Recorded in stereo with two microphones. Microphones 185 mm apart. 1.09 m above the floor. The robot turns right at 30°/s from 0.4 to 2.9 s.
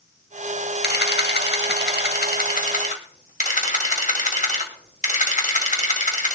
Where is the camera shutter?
70° left, 1.7 m; by 6.4 s 135° left, 1.7 m.